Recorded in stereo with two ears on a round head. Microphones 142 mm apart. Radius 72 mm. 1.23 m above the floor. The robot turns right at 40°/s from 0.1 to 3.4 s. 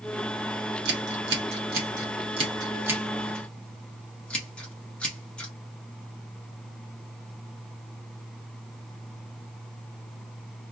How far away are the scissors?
About 1.3 m.